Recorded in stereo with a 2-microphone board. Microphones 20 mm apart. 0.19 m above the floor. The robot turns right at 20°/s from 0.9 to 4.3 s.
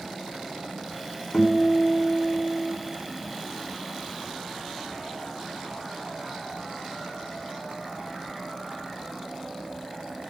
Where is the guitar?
45° left (ahead or behind), 1.8 m; by 2.8 s 35° left (ahead or behind), 1.8 m.